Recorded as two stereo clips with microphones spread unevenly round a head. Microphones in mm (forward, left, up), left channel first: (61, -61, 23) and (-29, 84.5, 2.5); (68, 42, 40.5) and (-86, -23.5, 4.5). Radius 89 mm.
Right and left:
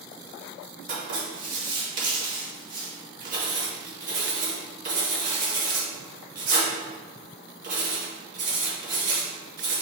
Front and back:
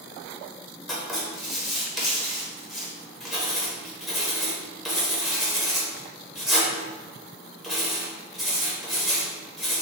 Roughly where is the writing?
Behind left.